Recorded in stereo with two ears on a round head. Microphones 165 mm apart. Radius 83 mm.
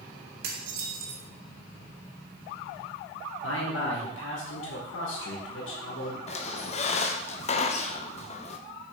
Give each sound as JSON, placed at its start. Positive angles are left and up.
{"t": 0.4, "sound": "dishes clattering", "side_deg": -55, "distance_m": 1.5}
{"t": 3.4, "sound": "a man speaking", "side_deg": 75, "distance_m": 2.5}
{"t": 6.3, "sound": "a squeak", "side_deg": 35, "distance_m": 0.8}